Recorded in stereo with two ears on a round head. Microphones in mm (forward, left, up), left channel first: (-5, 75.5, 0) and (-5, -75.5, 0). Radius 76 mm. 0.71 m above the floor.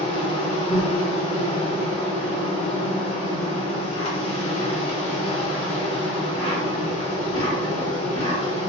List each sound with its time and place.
0.0 s an insect: 35° left (ahead or behind), 1.0 m